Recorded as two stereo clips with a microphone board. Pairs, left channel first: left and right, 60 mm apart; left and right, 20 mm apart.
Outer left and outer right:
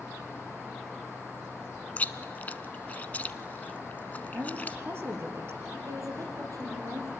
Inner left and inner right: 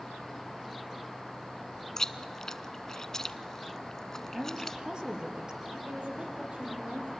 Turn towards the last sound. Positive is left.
turn(degrees=-75)  # may be behind; listen again after turning